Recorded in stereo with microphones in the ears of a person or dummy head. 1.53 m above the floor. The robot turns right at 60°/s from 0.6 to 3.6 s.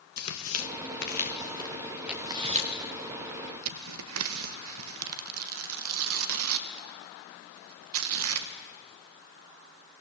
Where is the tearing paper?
80° left, 1.7 m; by 8.5 s 80° right, 1.7 m.